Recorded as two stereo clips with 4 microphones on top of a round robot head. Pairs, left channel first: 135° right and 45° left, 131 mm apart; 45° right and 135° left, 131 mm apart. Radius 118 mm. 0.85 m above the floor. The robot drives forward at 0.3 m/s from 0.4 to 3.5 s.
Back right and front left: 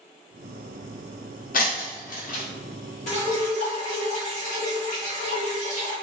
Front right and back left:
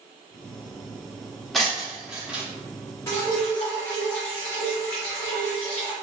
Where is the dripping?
115° right, 1.8 m.